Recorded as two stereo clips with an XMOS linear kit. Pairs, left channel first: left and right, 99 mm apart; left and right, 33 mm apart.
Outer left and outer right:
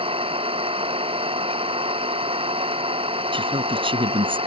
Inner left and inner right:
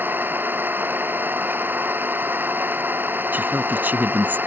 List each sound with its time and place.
0.0 s an engine running: 65° right (ahead or behind)
3.3 s a woman speaking: 60° right (ahead or behind)